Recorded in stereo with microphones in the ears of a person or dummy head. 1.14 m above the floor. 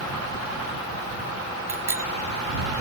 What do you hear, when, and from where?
1.7 s a bicycle bell: 20° right (ahead or behind)